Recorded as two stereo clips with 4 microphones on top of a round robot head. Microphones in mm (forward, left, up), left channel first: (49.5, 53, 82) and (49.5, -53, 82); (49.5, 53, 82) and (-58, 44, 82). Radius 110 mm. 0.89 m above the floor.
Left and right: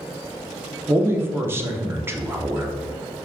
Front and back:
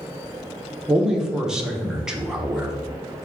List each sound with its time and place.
0.9 s a man speaking: 100° right, 0.7 m